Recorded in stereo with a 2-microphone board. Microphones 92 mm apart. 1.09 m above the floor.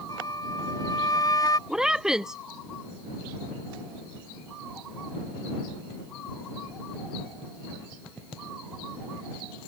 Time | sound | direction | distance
0.1 | a flute | 40° left (ahead or behind) | ?
1.7 | a woman speaking | 5° right (ahead or behind) | ?